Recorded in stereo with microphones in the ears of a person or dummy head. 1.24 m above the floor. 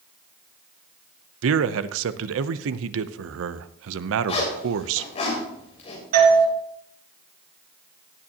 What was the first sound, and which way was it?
A man speaking, 85° right.